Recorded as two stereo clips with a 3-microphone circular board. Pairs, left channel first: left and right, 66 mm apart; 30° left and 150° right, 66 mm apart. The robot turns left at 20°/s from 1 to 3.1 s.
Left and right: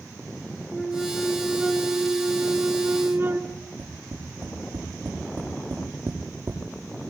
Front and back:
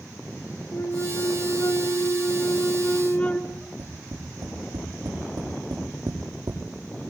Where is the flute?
5° left, 1.4 m; by 3.4 s 35° right, 1.4 m.